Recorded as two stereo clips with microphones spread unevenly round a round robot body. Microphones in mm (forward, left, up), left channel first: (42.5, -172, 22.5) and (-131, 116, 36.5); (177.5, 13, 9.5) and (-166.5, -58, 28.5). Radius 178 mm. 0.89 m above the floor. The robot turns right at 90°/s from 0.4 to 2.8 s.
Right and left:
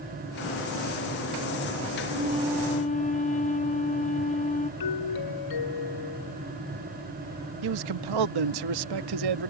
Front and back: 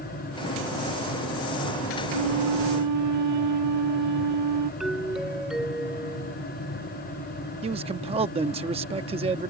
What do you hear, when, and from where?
2.1 s a flute: 165° left; by 4.7 s 130° right
4.8 s a doorbell: 80° right
7.6 s a man speaking: 115° left